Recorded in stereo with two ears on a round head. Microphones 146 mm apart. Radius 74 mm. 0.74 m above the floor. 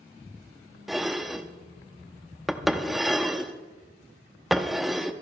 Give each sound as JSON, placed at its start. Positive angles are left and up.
{"t": 0.9, "sound": "dishes clattering", "side_deg": 0, "distance_m": 0.6}